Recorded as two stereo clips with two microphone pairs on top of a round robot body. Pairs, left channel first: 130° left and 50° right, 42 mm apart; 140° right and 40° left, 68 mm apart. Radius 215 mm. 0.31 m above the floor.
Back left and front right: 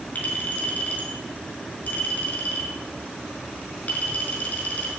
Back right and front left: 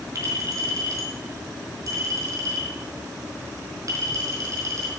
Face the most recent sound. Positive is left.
turn(degrees=80)